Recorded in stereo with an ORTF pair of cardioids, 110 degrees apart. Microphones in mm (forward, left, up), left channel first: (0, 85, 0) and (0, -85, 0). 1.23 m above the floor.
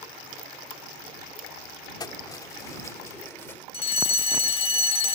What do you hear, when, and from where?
2.0 s keys jangling: 25° left; by 3.6 s 15° left
3.7 s a fire alarm: 35° left